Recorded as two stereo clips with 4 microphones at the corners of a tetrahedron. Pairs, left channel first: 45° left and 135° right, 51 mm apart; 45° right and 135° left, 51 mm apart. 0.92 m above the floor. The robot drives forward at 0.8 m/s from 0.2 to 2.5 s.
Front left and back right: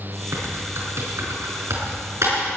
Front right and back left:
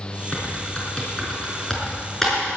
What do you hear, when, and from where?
0.3 s typing on a keyboard: 115° right, 5 m; by 2.5 s 130° right, 5.5 m